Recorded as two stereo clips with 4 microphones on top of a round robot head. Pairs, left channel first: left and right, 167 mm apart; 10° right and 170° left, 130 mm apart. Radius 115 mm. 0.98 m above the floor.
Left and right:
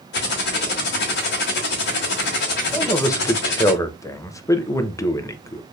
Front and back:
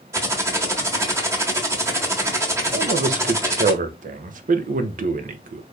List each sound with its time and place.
0.1 s typing on a keyboard: 105° left, 1.1 m
2.7 s a man speaking: 165° left, 0.6 m